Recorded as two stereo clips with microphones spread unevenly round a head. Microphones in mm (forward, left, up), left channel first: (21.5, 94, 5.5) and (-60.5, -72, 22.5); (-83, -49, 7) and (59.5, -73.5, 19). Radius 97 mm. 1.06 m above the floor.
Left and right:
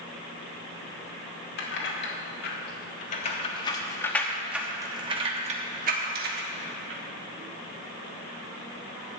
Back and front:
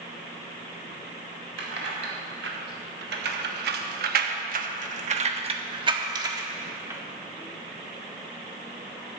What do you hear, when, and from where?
1.6 s keys jangling: 30° left, 2 m; by 7.0 s 85° right, 1.9 m